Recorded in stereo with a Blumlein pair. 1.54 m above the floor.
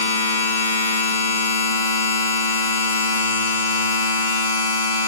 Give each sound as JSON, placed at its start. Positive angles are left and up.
{"t": 0.0, "sound": "a machine running", "azimuth_deg": 60, "distance_m": 0.9}